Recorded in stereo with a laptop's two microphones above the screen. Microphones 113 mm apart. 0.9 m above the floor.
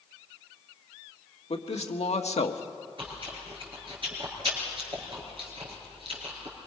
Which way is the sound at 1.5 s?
70° left (ahead or behind).